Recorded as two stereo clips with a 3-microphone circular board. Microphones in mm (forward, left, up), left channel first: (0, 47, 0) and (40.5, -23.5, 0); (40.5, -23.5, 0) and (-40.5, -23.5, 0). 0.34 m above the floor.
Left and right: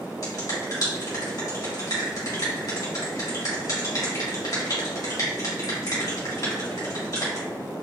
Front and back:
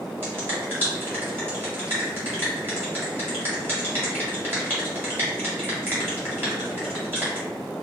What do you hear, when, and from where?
0.2 s a finger snap: 130° left, 1.6 m